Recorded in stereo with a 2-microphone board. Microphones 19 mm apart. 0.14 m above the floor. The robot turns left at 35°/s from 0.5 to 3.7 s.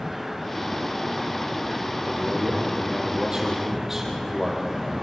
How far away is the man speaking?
About 5 m.